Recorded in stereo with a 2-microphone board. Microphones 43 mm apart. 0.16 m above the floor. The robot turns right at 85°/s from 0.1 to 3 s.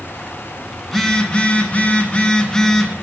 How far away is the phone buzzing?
About 0.9 m.